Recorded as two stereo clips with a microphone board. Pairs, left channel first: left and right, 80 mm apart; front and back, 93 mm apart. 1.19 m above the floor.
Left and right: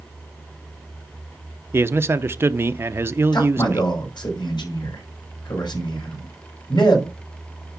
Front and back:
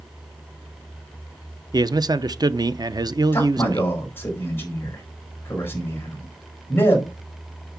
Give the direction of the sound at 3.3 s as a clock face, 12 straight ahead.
10 o'clock.